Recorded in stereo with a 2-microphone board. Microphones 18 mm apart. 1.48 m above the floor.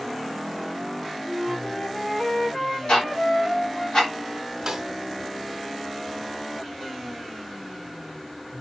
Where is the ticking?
70° left (ahead or behind), 3 m.